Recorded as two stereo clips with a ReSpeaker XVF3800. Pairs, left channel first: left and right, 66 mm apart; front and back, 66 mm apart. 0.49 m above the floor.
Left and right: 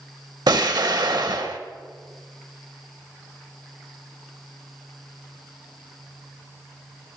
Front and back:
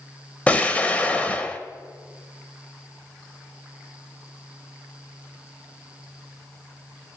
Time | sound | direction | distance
0.5 | an explosion | 70° right | 0.6 m